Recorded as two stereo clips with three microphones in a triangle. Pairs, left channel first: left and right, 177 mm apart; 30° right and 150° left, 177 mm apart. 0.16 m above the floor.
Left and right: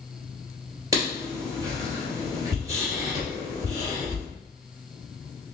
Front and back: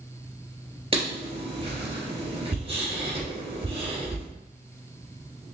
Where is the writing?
155° right, 2.5 m.